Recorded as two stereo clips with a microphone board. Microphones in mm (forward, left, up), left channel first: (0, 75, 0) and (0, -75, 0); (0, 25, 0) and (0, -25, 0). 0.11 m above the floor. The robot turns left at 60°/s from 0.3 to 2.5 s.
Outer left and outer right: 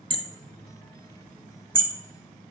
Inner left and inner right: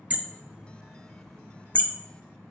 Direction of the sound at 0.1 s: 35° right (ahead or behind).